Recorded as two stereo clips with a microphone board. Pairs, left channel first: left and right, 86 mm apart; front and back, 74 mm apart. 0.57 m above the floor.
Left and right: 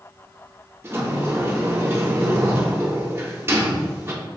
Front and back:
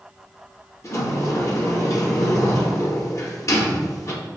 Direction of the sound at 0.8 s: 35° right.